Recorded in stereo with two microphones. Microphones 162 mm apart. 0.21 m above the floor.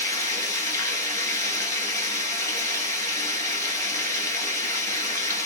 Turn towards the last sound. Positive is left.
turn(degrees=20)  # may be behind; listen again after turning